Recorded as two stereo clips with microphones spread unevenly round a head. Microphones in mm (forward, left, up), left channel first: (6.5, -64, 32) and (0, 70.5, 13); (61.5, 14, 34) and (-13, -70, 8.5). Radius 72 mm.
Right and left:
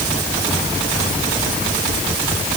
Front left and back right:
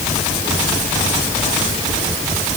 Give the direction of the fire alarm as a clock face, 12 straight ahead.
No fire alarm in this recording.